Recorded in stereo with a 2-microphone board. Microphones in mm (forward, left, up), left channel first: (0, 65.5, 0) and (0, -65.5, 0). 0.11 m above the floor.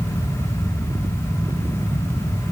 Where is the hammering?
No hammering in this recording.